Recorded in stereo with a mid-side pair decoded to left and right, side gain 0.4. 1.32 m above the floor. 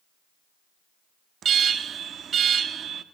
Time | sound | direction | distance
1.4 | an alarm | 65° right | 1.8 m